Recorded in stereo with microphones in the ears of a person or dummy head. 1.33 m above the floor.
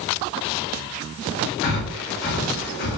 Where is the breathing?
60° left (ahead or behind), 1.9 m.